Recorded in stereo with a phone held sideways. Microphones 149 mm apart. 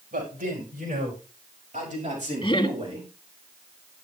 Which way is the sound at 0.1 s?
80° right.